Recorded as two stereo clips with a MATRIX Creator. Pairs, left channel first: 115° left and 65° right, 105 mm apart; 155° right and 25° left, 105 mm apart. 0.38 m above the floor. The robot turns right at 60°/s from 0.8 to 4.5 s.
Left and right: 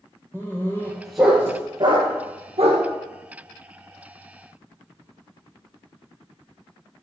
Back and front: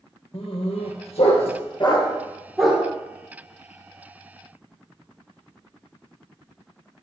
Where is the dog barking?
175° right, 2.5 m; by 2.8 s 55° right, 2.5 m.